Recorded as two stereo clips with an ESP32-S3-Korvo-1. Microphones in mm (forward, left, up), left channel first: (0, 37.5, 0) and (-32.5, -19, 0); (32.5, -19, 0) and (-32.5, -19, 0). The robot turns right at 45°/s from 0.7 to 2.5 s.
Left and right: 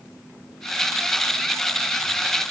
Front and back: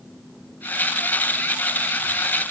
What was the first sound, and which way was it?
Only background noise.